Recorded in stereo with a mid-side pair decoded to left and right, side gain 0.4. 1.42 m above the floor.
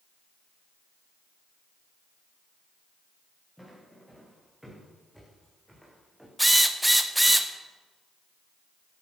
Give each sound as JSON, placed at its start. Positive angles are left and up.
{"t": 3.6, "sound": "footsteps", "azimuth_deg": 0, "distance_m": 8.0}
{"t": 6.4, "sound": "a drill", "azimuth_deg": -5, "distance_m": 1.6}